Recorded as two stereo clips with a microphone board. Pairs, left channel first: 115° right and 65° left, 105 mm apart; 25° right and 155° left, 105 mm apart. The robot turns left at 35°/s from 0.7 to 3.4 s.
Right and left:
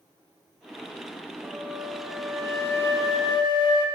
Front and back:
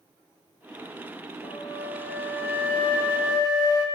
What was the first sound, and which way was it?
A flute, straight ahead.